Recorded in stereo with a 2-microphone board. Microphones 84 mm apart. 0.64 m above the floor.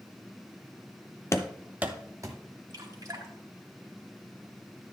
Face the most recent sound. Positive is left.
turn(degrees=-55)  # may be behind; listen again after turning